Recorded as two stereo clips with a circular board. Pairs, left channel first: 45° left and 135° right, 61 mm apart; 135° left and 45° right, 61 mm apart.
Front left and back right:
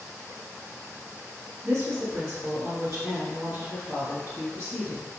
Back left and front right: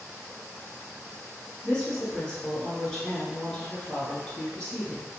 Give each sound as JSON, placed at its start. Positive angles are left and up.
{"t": 1.6, "sound": "a woman speaking", "azimuth_deg": -145, "distance_m": 1.4}